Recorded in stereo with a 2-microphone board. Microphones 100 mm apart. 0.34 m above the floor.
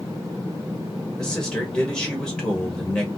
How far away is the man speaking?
About 1.4 m.